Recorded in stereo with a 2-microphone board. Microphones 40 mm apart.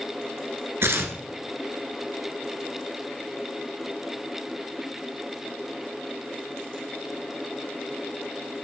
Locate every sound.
0.8 s tearing paper: 75° right (ahead or behind), 2 m